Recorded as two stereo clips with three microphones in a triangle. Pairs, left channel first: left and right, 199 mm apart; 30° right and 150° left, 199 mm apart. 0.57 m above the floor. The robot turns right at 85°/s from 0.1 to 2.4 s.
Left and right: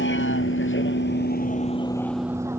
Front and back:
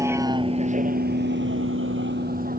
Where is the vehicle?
75° left; by 2.6 s 170° right.